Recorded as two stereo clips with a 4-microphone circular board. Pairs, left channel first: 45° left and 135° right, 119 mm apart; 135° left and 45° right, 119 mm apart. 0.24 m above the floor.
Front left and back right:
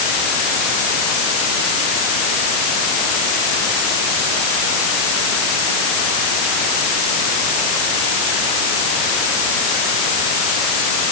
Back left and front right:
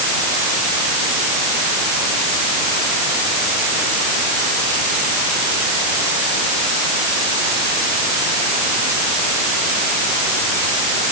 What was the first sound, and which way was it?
Only background noise.